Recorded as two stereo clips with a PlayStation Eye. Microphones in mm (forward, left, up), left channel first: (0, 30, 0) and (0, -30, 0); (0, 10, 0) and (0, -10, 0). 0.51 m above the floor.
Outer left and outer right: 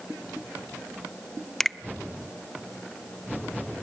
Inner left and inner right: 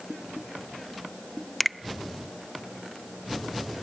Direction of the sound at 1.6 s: 5° left (ahead or behind).